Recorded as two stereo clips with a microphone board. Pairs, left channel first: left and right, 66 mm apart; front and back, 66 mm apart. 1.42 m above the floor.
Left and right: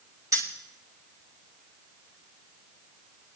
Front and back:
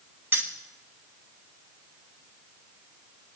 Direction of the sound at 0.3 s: 125° right.